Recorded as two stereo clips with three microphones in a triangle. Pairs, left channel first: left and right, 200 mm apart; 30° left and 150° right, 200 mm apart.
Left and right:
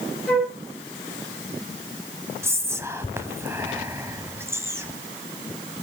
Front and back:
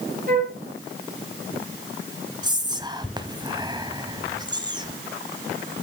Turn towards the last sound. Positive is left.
turn(degrees=-145)